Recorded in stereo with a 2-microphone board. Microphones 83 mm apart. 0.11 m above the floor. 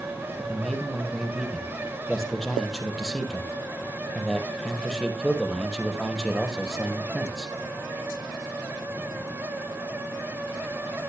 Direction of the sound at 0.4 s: 5° left (ahead or behind).